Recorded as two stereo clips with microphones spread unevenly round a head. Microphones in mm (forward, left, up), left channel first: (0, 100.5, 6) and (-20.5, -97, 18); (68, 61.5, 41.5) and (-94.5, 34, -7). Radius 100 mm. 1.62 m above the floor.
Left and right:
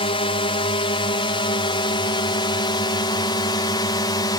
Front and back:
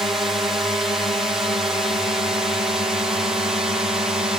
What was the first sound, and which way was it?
A drone, 125° left.